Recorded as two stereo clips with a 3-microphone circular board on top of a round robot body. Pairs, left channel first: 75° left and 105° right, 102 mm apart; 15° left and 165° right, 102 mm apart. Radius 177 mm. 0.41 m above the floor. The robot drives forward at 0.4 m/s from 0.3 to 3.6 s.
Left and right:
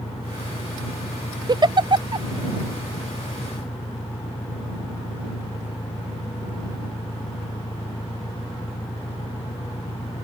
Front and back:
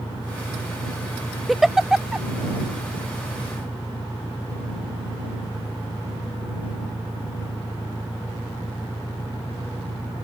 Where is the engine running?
65° left.